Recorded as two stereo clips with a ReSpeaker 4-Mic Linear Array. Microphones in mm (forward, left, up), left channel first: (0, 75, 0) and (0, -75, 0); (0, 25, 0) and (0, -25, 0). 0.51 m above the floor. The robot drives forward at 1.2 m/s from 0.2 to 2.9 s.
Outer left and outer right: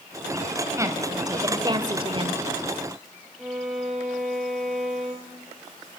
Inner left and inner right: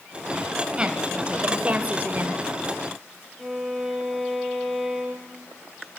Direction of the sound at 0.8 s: 20° right (ahead or behind).